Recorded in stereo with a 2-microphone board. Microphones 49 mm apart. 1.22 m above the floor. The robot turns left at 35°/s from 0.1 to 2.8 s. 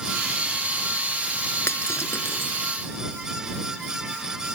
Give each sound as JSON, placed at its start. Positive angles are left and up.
{"t": 1.7, "sound": "breaking glass", "side_deg": 65}